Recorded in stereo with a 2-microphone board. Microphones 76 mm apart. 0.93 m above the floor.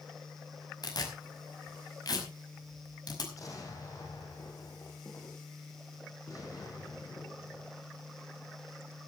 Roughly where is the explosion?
Left.